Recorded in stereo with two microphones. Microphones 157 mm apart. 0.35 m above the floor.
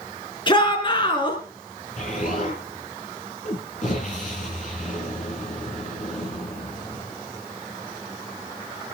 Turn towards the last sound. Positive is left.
turn(degrees=50)  # may be behind; listen again after turning